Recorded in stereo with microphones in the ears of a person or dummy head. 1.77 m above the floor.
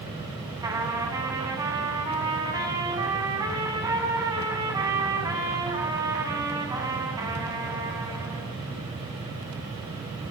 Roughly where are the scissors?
No scissors in this recording.